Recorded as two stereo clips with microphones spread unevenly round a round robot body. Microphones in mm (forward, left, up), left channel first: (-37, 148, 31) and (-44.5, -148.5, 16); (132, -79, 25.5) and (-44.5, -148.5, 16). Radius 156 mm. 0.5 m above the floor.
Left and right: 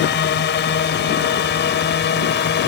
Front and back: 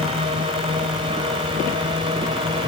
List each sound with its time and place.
0.0 s a drone: 135° left